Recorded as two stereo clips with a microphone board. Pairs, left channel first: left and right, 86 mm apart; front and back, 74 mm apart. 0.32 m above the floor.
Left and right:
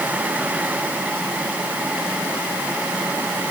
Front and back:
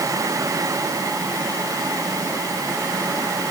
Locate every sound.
Only background noise.